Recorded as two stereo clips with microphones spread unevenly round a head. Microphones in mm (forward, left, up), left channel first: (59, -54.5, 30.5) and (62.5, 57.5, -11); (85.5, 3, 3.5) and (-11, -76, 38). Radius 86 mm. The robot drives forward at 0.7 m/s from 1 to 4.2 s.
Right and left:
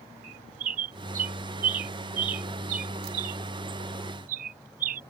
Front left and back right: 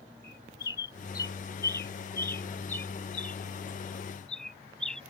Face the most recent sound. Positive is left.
turn(degrees=130)